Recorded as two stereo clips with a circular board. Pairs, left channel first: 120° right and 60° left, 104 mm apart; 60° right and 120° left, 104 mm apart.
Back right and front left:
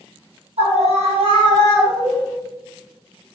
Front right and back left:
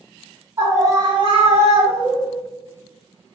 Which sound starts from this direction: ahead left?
A scream, at 0.6 s.